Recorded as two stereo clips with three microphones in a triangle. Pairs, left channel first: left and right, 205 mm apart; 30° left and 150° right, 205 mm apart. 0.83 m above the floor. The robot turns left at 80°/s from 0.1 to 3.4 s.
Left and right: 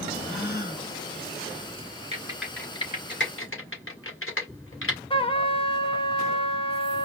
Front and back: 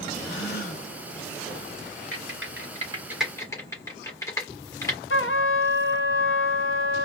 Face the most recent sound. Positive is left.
turn(degrees=30)